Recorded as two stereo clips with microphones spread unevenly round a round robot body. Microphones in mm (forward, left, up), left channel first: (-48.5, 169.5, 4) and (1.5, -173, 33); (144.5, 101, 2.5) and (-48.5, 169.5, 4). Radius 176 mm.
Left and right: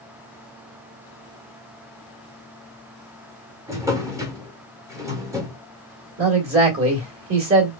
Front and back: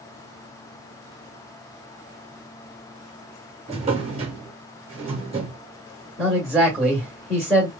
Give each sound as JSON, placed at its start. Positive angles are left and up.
{"t": 3.7, "sound": "a drawer", "azimuth_deg": -165, "distance_m": 0.6}
{"t": 6.2, "sound": "a man speaking", "azimuth_deg": -110, "distance_m": 1.5}